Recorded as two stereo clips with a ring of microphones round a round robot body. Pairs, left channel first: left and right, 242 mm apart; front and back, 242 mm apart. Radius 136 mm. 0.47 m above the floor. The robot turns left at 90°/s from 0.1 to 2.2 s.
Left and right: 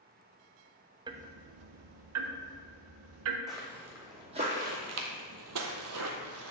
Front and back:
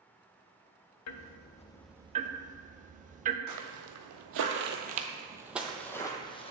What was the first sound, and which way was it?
Ticking, 15° right.